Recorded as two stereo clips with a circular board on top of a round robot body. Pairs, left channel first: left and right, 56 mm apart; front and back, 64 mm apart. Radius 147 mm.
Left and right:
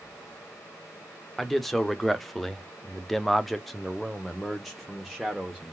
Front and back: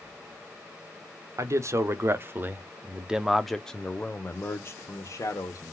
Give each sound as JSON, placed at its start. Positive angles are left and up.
{"t": 1.4, "sound": "a man speaking", "azimuth_deg": 175, "distance_m": 1.4}